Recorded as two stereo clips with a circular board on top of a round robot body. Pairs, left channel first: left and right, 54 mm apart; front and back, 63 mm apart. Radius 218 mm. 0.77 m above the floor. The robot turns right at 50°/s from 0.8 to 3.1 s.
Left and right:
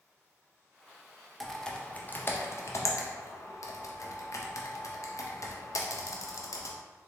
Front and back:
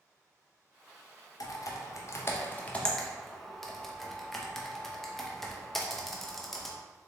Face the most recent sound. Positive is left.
turn(degrees=85)